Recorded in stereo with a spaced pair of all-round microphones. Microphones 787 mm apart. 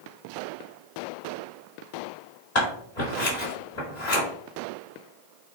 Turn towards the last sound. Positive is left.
turn(degrees=55)  # may be behind; listen again after turning